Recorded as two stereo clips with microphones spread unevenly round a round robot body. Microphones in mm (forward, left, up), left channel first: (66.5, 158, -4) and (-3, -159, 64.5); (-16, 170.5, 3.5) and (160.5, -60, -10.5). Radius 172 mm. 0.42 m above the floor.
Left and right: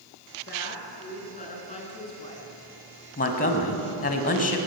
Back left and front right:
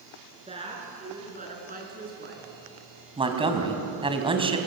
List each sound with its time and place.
0.5 s a woman speaking: 20° left, 7.5 m; by 2.5 s straight ahead, 6 m
3.2 s a man speaking: 20° left, 3.5 m